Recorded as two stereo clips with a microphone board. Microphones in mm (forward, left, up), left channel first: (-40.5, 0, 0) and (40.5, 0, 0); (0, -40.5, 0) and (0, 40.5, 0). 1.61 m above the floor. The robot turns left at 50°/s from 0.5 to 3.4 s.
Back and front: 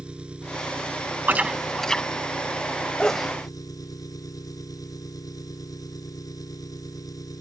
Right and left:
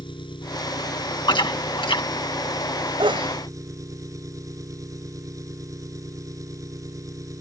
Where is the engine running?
75° right; by 7.4 s 140° left.